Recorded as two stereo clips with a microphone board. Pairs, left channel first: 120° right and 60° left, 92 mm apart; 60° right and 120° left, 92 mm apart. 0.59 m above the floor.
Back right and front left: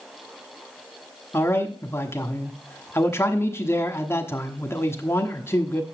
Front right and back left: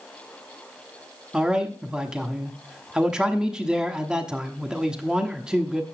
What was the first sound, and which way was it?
A man speaking, 165° right.